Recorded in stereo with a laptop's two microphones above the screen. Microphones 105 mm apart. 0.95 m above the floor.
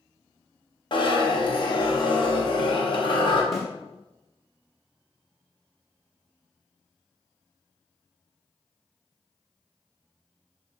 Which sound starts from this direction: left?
A zipper, at 0.9 s.